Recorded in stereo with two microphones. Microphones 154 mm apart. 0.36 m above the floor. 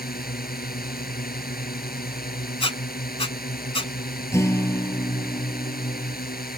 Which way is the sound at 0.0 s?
75° left (ahead or behind).